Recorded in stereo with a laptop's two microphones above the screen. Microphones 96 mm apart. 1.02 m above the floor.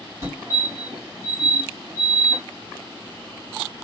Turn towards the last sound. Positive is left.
turn(degrees=-30)  # may be behind; listen again after turning